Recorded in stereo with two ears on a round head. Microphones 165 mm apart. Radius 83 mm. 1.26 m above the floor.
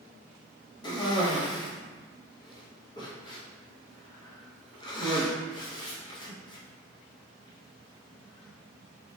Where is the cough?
25° left (ahead or behind), 0.9 m.